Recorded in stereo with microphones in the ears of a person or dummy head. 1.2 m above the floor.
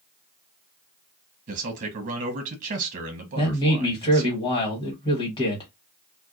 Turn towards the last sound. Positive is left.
turn(degrees=30)  # may be behind; listen again after turning